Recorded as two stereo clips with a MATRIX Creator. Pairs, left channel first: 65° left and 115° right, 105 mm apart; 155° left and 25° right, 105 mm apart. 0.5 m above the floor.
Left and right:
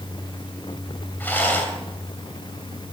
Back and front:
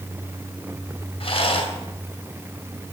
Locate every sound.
1.2 s a rattle: 140° left, 2.5 m